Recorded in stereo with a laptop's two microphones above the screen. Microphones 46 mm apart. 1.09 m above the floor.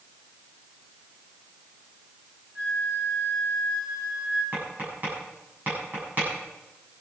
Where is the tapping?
40° right (ahead or behind), 8 m.